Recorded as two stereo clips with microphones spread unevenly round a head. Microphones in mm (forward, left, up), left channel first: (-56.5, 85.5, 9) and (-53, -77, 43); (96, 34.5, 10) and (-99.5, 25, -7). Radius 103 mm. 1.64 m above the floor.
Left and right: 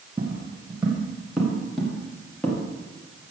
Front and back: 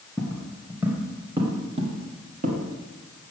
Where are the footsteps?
65° right, 1.7 m; by 2.6 s straight behind, 1.9 m.